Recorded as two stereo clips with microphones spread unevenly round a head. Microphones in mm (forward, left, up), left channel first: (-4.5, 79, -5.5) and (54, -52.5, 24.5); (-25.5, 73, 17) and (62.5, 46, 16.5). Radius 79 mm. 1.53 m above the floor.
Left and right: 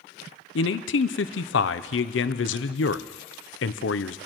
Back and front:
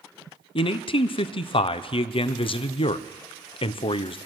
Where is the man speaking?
135° left, 0.6 m.